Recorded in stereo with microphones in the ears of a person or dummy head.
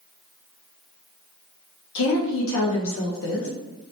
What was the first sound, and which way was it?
A woman speaking, 85° left.